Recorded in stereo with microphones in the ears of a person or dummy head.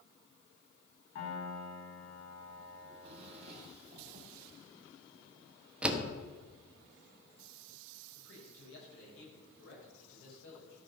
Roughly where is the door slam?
Centre.